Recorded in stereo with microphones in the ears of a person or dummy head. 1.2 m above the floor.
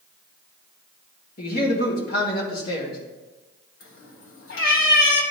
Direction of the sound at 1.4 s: 50° left (ahead or behind).